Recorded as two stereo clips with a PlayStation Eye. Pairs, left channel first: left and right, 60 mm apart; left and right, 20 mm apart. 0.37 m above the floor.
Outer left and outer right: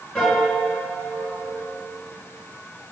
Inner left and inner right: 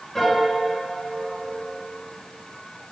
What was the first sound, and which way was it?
A piano, centre (ahead or behind).